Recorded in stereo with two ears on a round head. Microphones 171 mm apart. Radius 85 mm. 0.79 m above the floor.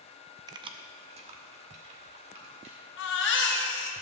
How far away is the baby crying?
About 1.2 m.